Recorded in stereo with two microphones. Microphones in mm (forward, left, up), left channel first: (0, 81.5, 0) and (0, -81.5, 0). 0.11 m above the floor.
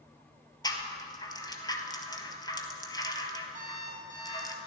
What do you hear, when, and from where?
0.6 s a rattle: 25° left (ahead or behind), 0.9 m
3.5 s an alarm clock: 50° right (ahead or behind), 3 m